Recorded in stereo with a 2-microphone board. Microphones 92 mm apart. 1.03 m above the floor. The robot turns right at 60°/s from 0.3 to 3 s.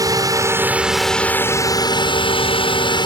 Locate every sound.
0.0 s a drone: 45° right; by 3.1 s 120° left